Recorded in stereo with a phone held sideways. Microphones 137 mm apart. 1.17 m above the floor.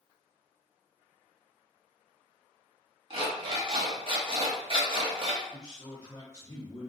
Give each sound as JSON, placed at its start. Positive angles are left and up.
{"t": 3.1, "sound": "an alarm clock", "side_deg": -40, "distance_m": 0.8}
{"t": 5.5, "sound": "a man speaking", "side_deg": 25, "distance_m": 1.2}